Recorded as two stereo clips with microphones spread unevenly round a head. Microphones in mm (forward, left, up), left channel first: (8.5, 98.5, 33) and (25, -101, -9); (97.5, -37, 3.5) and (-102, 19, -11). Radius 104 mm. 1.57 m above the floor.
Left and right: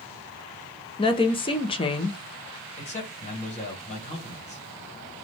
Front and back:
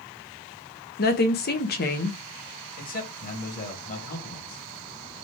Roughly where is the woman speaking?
Ahead left.